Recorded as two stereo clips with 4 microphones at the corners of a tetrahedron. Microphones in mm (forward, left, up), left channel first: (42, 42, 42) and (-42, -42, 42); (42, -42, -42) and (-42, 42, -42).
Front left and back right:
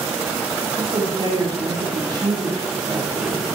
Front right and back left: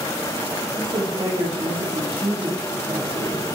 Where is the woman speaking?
Straight behind, 6 m.